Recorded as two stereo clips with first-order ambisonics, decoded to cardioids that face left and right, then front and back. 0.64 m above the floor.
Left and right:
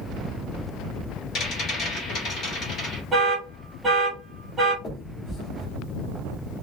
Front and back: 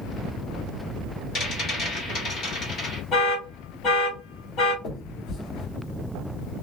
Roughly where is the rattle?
Ahead left.